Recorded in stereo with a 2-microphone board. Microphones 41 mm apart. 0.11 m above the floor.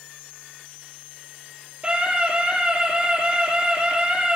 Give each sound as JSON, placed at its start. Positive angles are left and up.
{"t": 1.8, "sound": "a scream", "side_deg": -25, "distance_m": 3.5}